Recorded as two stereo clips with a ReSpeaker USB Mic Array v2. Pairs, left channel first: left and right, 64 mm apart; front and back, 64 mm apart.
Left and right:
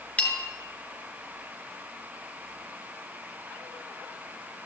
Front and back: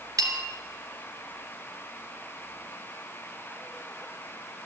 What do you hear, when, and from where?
0.2 s a bell: 160° left, 1.7 m